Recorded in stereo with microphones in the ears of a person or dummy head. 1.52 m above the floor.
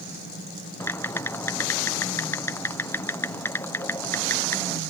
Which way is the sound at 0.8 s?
15° left (ahead or behind).